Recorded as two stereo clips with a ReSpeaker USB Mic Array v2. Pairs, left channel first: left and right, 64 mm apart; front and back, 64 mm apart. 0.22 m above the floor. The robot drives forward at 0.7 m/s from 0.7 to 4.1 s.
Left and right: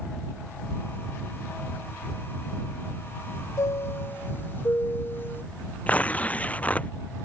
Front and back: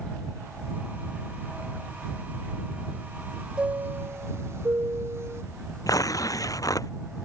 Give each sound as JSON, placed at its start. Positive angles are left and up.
{"t": 3.6, "sound": "a chime", "azimuth_deg": 110}
{"t": 5.9, "sound": "tearing paper", "azimuth_deg": 25}